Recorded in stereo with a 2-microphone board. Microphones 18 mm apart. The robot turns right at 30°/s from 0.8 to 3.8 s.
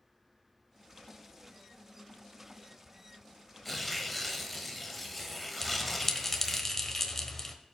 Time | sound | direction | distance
3.6 | tearing paper | 5° left (ahead or behind) | 1.2 m
5.6 | a bell | 15° left (ahead or behind) | 1.2 m